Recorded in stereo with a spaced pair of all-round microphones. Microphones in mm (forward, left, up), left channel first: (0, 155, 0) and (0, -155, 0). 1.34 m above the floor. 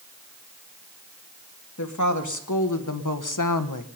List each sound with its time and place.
1.8 s a woman speaking: 65° left (ahead or behind), 2 m; by 3.9 s 80° left, 1.0 m